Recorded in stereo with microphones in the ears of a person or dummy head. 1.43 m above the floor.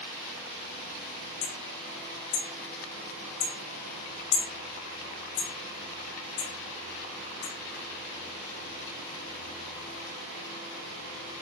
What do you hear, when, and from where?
1.4 s hammering: 35° left (ahead or behind), 1.9 m